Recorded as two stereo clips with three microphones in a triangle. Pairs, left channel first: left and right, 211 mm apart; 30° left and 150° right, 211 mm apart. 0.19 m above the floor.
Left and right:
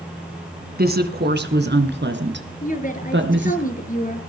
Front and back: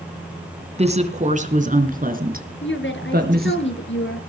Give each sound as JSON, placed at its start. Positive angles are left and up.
{"t": 0.8, "sound": "a woman speaking", "azimuth_deg": -100, "distance_m": 2.0}
{"t": 2.6, "sound": "a woman speaking", "azimuth_deg": 45, "distance_m": 3.5}